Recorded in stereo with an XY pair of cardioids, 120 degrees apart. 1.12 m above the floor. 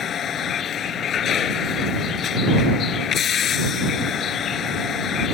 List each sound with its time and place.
0.0 s a vehicle: 50° left